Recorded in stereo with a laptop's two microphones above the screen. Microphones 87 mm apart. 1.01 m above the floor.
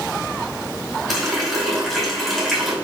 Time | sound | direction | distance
1.1 | a running tap | 5° right (ahead or behind) | 4.5 m